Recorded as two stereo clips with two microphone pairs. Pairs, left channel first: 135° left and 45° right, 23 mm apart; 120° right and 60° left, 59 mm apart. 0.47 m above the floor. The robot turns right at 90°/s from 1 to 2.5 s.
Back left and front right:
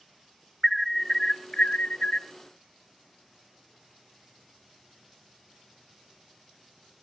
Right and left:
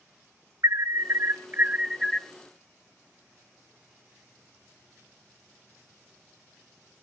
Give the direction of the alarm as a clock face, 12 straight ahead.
10 o'clock.